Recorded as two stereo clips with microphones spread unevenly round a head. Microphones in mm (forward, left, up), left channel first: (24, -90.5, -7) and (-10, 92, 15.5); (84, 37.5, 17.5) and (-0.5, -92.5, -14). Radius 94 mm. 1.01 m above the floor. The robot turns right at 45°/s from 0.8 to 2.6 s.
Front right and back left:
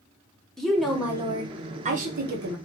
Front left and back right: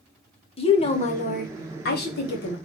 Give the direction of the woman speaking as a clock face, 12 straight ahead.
12 o'clock.